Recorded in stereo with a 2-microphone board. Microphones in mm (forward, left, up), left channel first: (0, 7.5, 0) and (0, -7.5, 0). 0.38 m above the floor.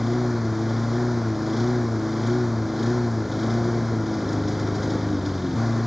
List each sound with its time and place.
0.0 s a lawn mower: 5° right (ahead or behind)